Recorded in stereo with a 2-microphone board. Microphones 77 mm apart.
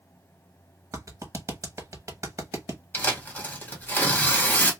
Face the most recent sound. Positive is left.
turn(degrees=20)  # may be behind; listen again after turning